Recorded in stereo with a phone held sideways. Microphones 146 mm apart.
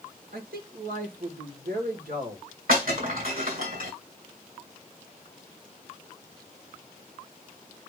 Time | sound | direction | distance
0.3 | a man speaking | 80° right | 2.5 m
2.7 | breaking glass | 70° right (ahead or behind) | 5.5 m